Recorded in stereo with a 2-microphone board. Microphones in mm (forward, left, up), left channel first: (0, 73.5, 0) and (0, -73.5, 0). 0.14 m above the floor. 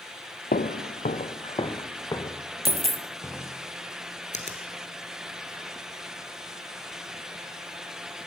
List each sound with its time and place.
0.5 s footsteps: 80° left, 0.7 m; by 3.6 s 10° left (ahead or behind), 2.5 m
2.6 s a dropped coin: 50° right (ahead or behind), 0.7 m
4.3 s a finger snap: 55° left (ahead or behind), 1.8 m